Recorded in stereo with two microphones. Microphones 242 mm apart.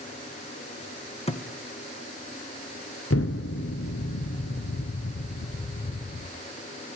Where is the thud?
25° left (ahead or behind), 2.0 m.